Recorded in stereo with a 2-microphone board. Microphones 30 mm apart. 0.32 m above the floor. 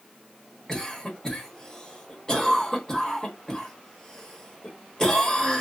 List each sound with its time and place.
0.7 s a cough: 20° left (ahead or behind), 1.2 m